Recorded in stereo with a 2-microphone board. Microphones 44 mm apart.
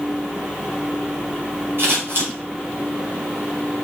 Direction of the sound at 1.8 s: 55° right (ahead or behind).